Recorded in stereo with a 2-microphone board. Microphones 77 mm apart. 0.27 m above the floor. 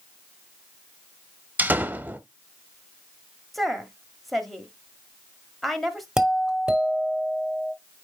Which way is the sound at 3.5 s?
Centre (ahead or behind).